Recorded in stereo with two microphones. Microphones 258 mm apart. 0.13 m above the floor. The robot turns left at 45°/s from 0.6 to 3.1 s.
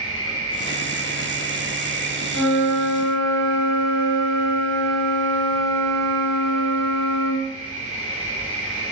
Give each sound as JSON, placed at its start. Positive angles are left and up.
{"t": 0.0, "sound": "an insect", "azimuth_deg": 60, "distance_m": 1.8}
{"t": 2.3, "sound": "a flute", "azimuth_deg": 110, "distance_m": 1.2}